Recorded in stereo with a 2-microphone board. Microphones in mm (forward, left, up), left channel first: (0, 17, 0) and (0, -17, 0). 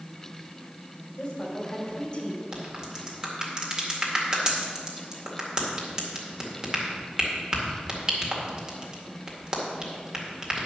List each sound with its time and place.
1.2 s a woman speaking: 30° left (ahead or behind), 2.5 m
2.5 s a crack: 25° right (ahead or behind), 2 m